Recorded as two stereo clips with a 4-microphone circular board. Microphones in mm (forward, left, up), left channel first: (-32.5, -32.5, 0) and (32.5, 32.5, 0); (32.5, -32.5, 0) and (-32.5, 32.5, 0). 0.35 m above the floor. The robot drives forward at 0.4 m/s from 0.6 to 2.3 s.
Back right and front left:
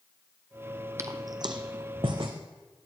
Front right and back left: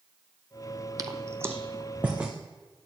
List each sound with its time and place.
1.0 s footsteps: 95° left, 0.6 m; by 2.3 s 60° left, 1.2 m